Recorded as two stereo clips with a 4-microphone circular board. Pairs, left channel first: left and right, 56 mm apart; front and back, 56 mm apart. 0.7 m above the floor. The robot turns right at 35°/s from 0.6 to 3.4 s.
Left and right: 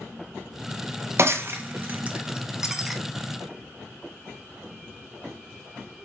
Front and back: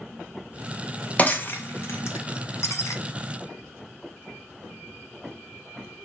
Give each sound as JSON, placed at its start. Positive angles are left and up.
{"t": 1.2, "sound": "breaking glass", "azimuth_deg": -60, "distance_m": 0.6}